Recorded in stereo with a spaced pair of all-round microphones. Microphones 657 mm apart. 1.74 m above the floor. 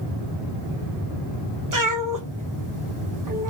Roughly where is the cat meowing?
Right.